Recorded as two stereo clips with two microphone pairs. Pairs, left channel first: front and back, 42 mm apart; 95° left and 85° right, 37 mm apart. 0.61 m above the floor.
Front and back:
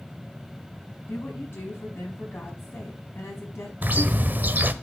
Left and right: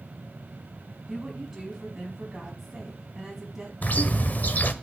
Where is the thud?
I don't hear a thud.